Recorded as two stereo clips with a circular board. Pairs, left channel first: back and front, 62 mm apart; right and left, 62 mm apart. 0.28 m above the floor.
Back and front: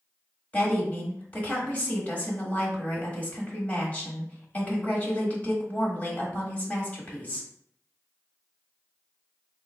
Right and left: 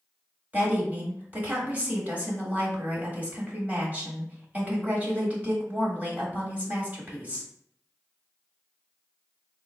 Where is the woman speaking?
130° left, 1.3 m.